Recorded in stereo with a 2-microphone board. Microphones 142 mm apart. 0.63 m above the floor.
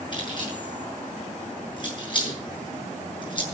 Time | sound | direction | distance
0.1 | keys jangling | 35° left (ahead or behind) | 7 m